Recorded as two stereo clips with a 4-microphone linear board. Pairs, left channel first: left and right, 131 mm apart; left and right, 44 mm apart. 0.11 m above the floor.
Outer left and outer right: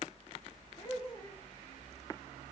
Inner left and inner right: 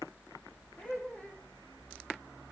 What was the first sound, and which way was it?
Laughter, 30° left (ahead or behind).